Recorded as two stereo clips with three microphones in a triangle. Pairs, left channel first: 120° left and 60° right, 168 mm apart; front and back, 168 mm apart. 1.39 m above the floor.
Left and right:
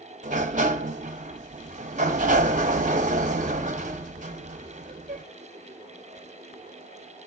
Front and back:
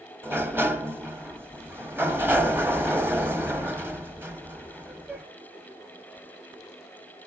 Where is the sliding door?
105° right, 1.0 m.